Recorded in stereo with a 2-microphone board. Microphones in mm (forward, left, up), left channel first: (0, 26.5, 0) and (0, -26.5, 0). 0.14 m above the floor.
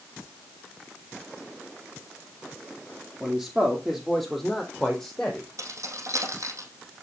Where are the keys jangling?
70° right (ahead or behind), 3.5 m.